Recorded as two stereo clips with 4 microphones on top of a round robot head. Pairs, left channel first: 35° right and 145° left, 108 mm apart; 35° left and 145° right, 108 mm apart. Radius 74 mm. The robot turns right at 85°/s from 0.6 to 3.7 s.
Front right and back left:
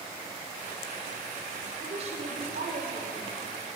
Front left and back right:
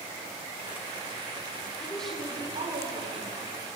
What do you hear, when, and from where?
1.8 s a woman speaking: 100° left, 4.5 m; by 3.4 s 125° right, 4.5 m